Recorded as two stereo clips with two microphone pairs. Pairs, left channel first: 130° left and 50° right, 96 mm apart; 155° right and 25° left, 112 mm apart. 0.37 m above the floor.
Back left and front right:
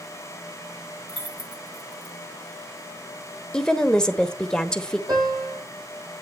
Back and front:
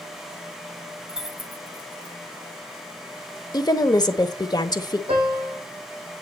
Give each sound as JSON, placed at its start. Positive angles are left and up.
{"t": 1.1, "sound": "keys jangling", "azimuth_deg": -55, "distance_m": 2.0}
{"t": 3.5, "sound": "a woman speaking", "azimuth_deg": -155, "distance_m": 1.0}
{"t": 5.1, "sound": "a piano", "azimuth_deg": 0, "distance_m": 7.5}